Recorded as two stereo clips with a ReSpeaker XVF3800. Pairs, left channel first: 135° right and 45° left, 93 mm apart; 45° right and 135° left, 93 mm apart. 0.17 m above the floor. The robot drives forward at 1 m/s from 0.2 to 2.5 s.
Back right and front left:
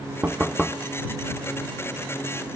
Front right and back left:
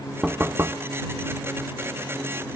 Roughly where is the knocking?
Left.